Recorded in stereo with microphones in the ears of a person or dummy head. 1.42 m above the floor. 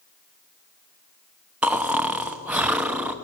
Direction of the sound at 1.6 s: 10° right (ahead or behind).